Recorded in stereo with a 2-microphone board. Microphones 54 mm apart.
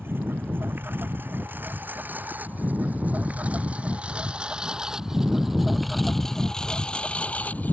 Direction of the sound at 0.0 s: 45° right (ahead or behind).